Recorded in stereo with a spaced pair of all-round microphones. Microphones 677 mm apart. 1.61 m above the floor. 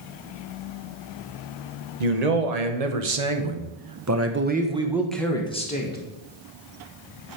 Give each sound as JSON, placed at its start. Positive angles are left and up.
{"t": 2.0, "sound": "a man speaking", "side_deg": -70, "distance_m": 1.3}